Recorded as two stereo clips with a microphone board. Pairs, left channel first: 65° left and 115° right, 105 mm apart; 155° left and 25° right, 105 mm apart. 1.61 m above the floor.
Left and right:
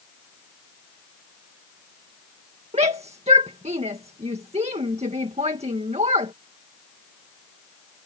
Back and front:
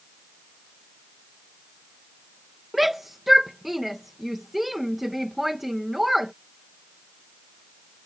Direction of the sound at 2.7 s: 110° right.